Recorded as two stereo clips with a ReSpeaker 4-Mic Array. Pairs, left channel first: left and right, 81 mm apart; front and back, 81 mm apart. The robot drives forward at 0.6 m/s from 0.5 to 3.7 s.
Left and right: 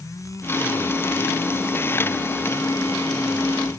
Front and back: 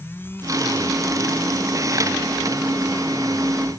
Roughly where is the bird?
I don't hear a bird.